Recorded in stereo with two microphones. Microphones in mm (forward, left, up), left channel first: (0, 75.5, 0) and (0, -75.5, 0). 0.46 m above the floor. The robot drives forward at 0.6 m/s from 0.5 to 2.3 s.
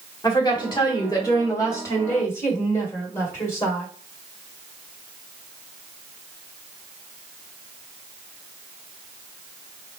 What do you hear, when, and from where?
0.2 s a woman speaking: 30° left (ahead or behind), 1.2 m; by 3.9 s 20° left (ahead or behind), 1.8 m